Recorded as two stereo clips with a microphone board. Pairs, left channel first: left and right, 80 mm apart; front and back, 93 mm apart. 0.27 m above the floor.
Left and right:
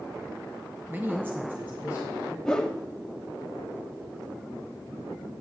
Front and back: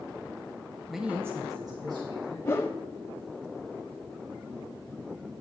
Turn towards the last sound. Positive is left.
turn(degrees=15)